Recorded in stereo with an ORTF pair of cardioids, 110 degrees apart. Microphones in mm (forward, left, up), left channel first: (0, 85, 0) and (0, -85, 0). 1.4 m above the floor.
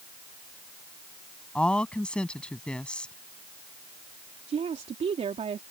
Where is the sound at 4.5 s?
40° right.